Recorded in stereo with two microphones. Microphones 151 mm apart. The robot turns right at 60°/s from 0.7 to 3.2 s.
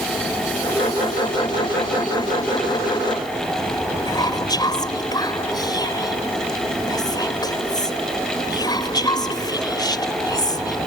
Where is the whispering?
25° left (ahead or behind).